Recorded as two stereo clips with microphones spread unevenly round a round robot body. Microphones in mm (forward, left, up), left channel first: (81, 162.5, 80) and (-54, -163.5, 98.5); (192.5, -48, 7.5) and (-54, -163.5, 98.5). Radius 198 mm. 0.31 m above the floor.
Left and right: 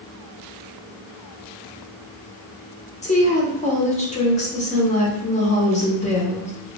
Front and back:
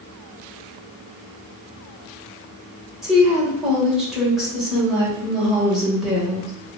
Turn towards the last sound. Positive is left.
turn(degrees=60)